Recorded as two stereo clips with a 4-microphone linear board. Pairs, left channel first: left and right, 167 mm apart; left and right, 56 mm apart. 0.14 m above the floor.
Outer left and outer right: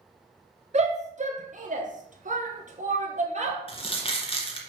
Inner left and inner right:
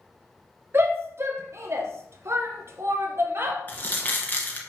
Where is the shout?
40° right (ahead or behind), 2 m.